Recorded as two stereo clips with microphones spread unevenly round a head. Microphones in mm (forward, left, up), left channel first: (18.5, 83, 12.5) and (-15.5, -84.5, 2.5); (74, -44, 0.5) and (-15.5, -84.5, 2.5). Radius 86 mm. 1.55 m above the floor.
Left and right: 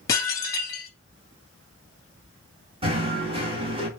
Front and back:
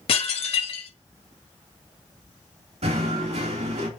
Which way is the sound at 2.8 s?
160° right.